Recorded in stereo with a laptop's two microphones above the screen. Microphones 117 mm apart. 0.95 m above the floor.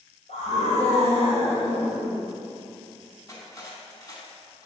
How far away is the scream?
About 4 m.